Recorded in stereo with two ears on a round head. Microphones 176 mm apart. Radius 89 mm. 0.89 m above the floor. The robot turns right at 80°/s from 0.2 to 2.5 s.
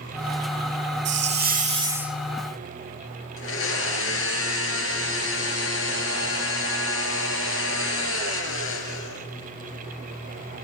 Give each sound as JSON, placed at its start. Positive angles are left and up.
{"t": 1.1, "sound": "a hiss", "azimuth_deg": -90, "distance_m": 1.1}
{"t": 3.4, "sound": "a blender", "side_deg": 70, "distance_m": 3.5}